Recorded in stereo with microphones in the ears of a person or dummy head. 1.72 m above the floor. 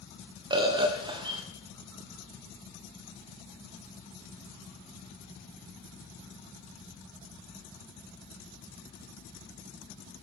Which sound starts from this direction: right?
A bird, at 0.5 s.